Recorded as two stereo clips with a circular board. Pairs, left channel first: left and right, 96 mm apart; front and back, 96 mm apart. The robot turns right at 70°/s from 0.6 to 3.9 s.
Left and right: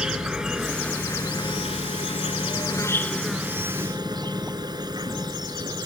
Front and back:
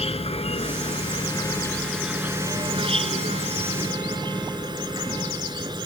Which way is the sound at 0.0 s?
10° right.